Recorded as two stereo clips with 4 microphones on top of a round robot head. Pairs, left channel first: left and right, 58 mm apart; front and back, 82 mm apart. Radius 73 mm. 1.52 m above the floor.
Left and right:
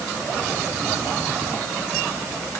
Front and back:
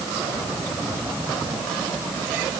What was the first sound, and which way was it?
Only background noise.